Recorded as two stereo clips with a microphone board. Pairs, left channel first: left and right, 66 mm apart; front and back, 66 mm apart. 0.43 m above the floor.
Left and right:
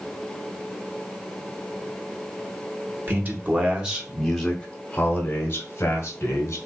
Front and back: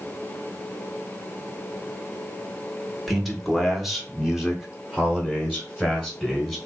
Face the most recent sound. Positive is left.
turn(degrees=105)